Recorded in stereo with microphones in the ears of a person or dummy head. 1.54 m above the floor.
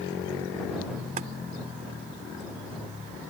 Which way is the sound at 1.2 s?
45° right (ahead or behind).